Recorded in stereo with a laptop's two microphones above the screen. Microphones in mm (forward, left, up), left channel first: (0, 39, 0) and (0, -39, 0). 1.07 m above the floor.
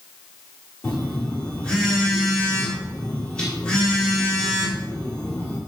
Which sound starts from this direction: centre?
A phone buzzing, at 0.8 s.